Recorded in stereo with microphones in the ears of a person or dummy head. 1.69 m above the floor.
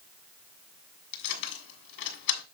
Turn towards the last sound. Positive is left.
turn(degrees=55)  # may be behind; listen again after turning